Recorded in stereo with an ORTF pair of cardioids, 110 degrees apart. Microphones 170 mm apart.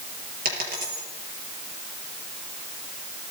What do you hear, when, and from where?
0.5 s a dropped coin: 60° right, 6 m